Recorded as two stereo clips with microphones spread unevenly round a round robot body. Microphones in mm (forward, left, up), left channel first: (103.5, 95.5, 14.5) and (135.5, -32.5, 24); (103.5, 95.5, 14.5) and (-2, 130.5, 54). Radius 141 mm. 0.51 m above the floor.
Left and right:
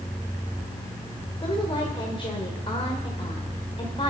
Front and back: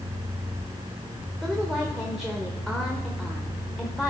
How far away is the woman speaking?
About 2.5 m.